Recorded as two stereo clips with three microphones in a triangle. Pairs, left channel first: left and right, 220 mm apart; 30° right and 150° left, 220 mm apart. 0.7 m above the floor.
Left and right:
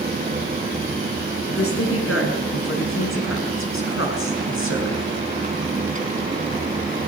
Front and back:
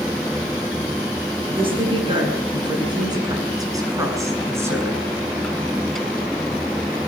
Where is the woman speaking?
85° left, 7.5 m; by 5.1 s 70° left, 6.5 m.